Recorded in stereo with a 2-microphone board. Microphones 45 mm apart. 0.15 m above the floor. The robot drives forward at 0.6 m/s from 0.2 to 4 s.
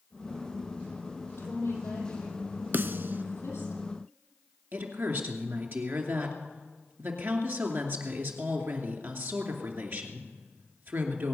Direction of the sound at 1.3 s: 75° left (ahead or behind).